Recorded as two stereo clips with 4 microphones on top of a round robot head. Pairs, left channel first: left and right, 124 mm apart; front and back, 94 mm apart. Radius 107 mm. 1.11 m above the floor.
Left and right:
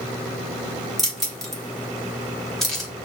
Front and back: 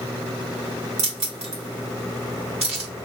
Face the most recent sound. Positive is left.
turn(degrees=180)